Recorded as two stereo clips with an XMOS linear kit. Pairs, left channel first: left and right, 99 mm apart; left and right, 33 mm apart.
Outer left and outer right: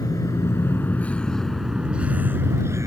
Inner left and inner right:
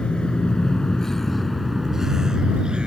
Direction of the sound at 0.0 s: 40° left (ahead or behind).